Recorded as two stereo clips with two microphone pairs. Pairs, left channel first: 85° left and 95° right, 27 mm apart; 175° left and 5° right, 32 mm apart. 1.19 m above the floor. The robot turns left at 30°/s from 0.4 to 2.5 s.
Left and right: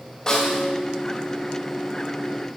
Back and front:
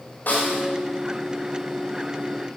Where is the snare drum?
145° left, 3 m; by 0.7 s 135° left, 3 m.